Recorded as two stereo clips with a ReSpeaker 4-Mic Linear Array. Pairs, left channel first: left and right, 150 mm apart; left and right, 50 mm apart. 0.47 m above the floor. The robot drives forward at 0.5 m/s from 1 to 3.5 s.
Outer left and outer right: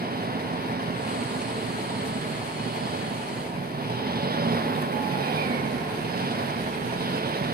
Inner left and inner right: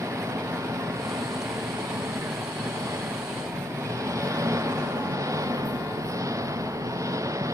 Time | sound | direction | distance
0.0 | an engine running | 85° right | ?